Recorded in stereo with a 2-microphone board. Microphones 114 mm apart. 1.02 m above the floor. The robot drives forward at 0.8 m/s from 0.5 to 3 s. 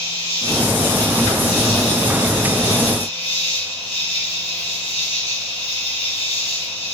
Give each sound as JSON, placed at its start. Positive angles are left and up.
{"t": 0.0, "sound": "an insect", "side_deg": 55, "distance_m": 3.0}